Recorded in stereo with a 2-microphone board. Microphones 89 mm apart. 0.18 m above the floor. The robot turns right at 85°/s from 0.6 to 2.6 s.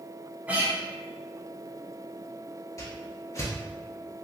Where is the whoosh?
35° left (ahead or behind), 0.8 m.